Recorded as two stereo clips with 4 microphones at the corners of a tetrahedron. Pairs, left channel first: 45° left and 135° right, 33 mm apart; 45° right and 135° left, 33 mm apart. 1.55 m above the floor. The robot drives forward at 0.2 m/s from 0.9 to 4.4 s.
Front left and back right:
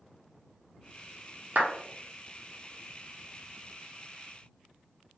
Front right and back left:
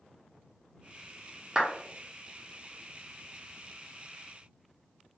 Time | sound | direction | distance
1.6 | a clap | 155° right | 0.6 m